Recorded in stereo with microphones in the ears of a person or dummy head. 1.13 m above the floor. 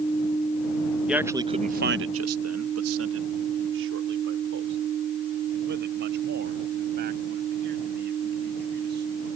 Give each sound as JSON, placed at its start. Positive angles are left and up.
{"t": 1.1, "sound": "a man speaking", "side_deg": -5}